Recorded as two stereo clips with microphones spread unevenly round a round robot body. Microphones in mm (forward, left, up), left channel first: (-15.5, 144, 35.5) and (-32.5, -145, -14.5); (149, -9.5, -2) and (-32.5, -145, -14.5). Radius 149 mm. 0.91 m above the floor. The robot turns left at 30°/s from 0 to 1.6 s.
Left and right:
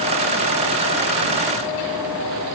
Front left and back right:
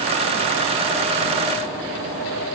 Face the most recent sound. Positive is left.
No sound to turn to.